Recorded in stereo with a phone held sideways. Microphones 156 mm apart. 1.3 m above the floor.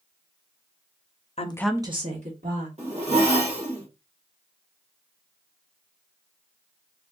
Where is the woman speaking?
45° left (ahead or behind), 0.6 m; by 2.7 s 60° right (ahead or behind), 1.7 m.